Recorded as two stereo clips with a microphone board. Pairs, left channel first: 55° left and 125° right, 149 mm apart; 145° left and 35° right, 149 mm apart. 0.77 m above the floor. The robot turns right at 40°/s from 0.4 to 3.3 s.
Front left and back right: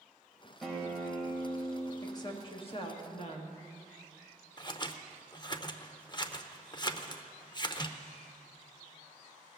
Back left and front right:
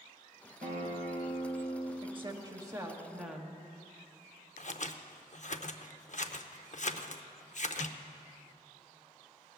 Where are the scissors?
115° left, 0.6 m.